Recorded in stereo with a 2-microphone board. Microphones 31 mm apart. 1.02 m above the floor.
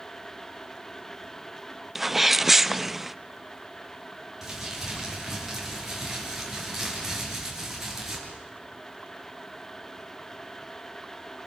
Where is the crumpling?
10° right (ahead or behind), 7.5 m.